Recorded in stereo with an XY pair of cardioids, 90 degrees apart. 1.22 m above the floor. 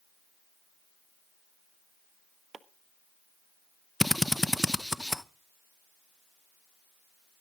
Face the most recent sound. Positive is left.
turn(degrees=5)